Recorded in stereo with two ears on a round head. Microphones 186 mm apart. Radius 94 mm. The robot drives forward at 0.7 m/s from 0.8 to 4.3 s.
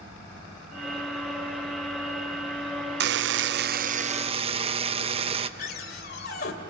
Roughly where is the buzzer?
Right.